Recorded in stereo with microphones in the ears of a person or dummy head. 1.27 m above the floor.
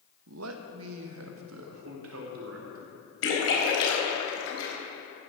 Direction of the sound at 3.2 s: 80° left.